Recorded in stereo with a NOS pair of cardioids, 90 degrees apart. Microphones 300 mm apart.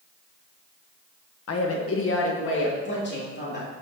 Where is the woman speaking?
55° left, 1.3 m; by 3.7 s 35° left, 3.5 m.